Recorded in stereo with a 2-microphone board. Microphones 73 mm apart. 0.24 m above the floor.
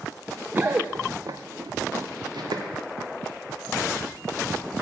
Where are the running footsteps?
25° right (ahead or behind), 0.7 m; by 2.6 s 85° right, 1.5 m.